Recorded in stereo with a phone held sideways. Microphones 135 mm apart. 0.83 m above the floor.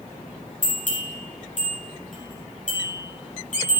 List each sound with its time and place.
0.6 s a bell: 70° left (ahead or behind), 4.5 m